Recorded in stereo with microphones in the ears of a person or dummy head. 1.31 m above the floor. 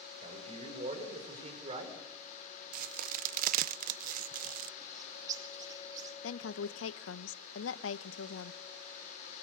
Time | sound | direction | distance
0.2 | a man speaking | 40° right (ahead or behind) | 6.5 m
2.7 | a crack | 50° right (ahead or behind) | 0.8 m
4.8 | a bird | 25° right (ahead or behind) | 3 m
6.2 | a woman speaking | 80° left | 1.0 m